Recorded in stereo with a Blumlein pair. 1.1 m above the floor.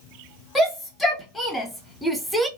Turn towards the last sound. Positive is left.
turn(degrees=-10)